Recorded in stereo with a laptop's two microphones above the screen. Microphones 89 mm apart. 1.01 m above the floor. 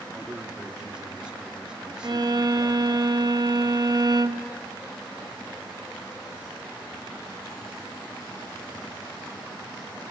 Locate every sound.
0.1 s a man speaking: 10° right (ahead or behind), 2.5 m
2.0 s a violin: 50° right (ahead or behind), 1.0 m